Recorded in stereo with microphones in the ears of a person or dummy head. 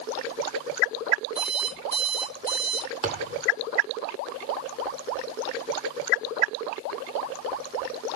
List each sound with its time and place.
1.4 s an alarm clock: 35° right (ahead or behind), 4.5 m
3.0 s a thud: 20° right (ahead or behind), 1.1 m